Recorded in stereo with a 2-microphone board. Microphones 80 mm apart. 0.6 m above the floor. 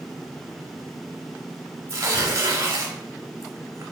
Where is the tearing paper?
35° right (ahead or behind), 0.7 m.